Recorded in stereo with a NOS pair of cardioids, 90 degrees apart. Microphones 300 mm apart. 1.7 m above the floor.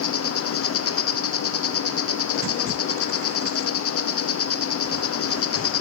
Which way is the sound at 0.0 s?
50° left.